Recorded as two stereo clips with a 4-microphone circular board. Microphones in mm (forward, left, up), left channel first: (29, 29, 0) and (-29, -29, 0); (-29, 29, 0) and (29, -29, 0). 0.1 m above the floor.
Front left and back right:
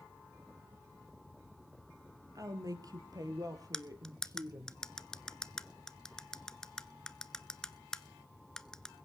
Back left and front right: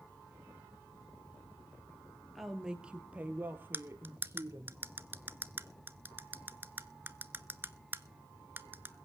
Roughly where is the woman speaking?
Behind right.